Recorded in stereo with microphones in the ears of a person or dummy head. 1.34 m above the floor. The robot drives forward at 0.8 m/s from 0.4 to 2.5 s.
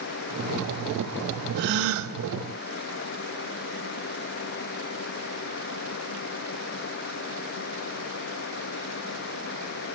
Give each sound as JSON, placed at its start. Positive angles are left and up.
{"t": 1.6, "sound": "a gasp", "side_deg": -55, "distance_m": 0.7}